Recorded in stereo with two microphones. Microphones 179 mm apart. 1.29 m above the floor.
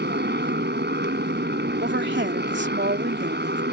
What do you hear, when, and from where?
0.0 s a motorcycle: 75° right (ahead or behind)
1.8 s a woman speaking: 90° right